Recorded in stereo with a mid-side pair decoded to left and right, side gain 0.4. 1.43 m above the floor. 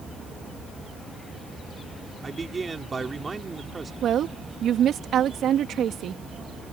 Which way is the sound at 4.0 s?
70° right.